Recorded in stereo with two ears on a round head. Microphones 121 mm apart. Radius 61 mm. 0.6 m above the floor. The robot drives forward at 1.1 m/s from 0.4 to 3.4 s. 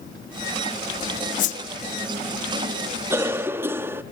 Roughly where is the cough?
Centre.